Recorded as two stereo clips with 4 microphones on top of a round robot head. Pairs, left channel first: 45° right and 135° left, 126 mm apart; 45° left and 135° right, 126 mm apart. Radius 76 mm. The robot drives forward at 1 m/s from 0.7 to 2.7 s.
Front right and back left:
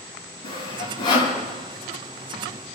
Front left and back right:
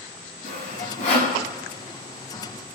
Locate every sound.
0.4 s sawing: 10° left, 7 m